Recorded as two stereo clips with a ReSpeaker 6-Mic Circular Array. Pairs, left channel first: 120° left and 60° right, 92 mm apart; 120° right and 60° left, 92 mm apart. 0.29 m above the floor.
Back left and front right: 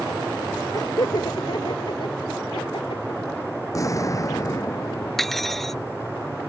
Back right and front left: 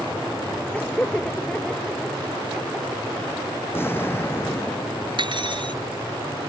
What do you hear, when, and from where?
0.7 s laughter: 165° left; by 3.4 s 135° left
3.7 s an explosion: 175° left
5.2 s cutlery clinking: 35° left